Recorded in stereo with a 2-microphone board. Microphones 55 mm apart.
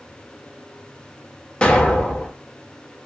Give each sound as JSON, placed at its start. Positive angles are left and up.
{"t": 1.6, "sound": "an explosion", "side_deg": 25, "distance_m": 0.6}